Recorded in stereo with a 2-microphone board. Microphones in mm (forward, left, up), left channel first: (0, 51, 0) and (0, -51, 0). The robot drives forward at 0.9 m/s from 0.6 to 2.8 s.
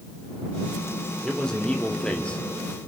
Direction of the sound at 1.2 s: 5° left (ahead or behind).